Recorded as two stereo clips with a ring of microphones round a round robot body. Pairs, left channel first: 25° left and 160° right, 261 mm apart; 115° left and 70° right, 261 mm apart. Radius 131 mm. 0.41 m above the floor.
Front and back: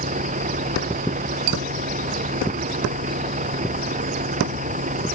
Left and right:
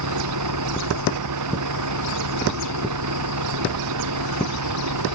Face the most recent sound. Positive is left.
turn(degrees=-95)